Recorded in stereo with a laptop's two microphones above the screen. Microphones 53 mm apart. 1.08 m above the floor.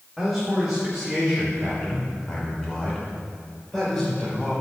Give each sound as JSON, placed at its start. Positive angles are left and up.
{"t": 0.2, "sound": "a man speaking", "side_deg": -5, "distance_m": 3.0}